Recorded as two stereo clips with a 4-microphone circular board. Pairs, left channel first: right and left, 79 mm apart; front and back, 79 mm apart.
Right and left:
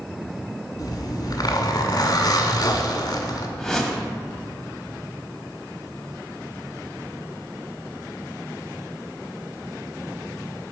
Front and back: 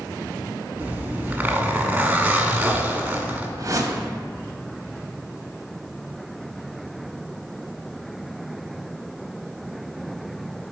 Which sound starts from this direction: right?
A zipper, at 0.8 s.